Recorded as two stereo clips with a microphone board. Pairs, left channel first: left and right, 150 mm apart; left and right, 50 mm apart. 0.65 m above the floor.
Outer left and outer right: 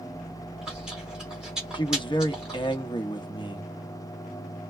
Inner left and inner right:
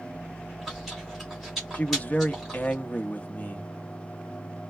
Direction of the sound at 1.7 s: 30° left (ahead or behind).